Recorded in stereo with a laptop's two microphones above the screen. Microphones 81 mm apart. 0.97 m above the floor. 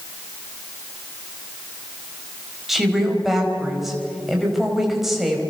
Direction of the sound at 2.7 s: Centre (ahead or behind).